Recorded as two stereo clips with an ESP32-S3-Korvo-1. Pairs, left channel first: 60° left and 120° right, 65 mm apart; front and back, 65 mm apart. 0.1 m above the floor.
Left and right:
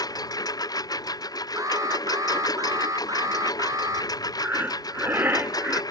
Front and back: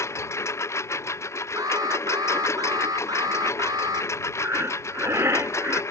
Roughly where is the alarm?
Behind right.